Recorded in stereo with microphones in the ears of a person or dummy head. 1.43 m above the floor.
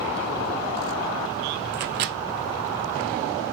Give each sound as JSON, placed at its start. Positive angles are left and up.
{"t": 1.7, "sound": "a microwave", "side_deg": -55, "distance_m": 0.7}